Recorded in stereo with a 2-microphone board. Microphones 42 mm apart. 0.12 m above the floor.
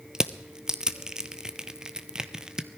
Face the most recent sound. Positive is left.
turn(degrees=-15)  # may be behind; listen again after turning